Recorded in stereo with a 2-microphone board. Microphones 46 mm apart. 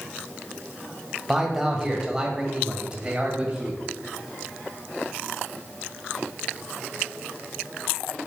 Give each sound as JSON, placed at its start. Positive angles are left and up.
{"t": 1.3, "sound": "a man speaking", "side_deg": -5, "distance_m": 1.7}